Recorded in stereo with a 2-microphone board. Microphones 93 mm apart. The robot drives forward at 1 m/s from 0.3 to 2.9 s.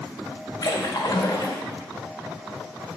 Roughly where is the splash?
Left.